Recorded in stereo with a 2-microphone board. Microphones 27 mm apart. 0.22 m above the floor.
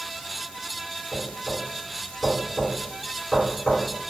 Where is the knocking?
15° left (ahead or behind), 2.0 m.